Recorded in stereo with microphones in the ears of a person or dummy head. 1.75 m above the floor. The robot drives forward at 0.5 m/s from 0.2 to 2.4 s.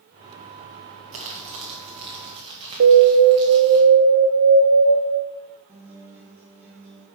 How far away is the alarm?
About 1.0 m.